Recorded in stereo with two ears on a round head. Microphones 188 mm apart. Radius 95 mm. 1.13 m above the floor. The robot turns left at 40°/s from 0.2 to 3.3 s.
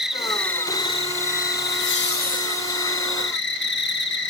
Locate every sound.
0.0 s an insect: 175° right, 1.3 m; by 4.3 s 60° left, 1.3 m
1.6 s laughter: 70° left, 1.0 m; by 2.9 s 20° left, 1.0 m